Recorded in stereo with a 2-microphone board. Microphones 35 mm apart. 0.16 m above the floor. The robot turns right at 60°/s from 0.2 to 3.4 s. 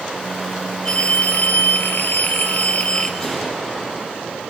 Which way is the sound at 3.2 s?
20° left (ahead or behind).